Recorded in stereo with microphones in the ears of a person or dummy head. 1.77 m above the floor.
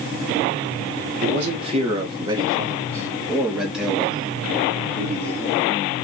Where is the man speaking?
40° right (ahead or behind), 1.4 m; by 5.8 s 15° left (ahead or behind), 3 m.